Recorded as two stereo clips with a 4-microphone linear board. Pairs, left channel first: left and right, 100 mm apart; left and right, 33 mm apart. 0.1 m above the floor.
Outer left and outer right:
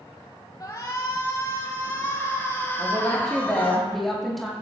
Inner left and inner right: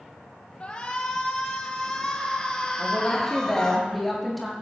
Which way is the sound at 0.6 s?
35° left (ahead or behind).